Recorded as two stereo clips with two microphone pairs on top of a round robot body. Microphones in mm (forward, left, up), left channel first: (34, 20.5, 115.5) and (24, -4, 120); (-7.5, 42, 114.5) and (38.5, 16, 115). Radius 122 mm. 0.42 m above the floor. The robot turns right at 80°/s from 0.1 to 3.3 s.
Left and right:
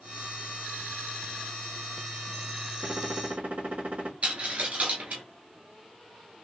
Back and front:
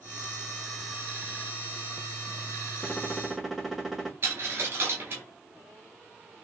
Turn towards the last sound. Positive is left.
turn(degrees=-85)